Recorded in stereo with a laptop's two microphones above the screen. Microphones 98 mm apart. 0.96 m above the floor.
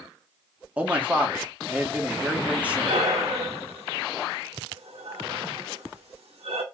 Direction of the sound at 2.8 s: 80° right.